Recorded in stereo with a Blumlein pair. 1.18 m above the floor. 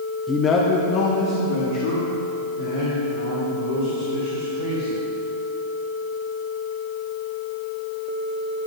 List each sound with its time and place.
0.3 s a man speaking: 10° left, 0.7 m; by 5.0 s 75° left, 5.5 m